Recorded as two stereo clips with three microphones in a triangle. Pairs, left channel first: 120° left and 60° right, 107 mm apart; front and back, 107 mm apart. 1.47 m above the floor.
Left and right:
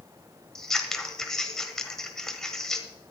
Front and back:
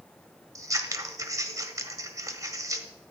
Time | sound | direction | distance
0.6 | scissors | 160° right | 1.4 m